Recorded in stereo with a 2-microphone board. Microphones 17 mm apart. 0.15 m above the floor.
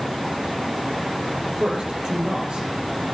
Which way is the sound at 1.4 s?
75° right (ahead or behind).